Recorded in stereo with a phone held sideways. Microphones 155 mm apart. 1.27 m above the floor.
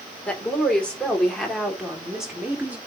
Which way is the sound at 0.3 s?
10° left (ahead or behind).